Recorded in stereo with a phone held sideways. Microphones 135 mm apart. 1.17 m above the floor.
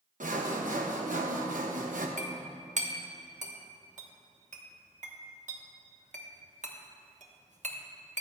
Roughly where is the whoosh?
No whoosh in this recording.